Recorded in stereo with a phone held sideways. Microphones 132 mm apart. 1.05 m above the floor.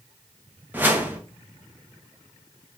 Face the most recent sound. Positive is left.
turn(degrees=-15)  # may be behind; listen again after turning